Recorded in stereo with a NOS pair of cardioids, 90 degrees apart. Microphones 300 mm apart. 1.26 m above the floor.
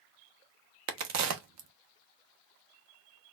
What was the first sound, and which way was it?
A crack, 65° right.